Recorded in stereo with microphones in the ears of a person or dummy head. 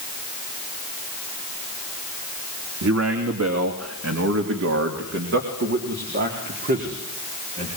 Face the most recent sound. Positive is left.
turn(degrees=-40)  # may be behind; listen again after turning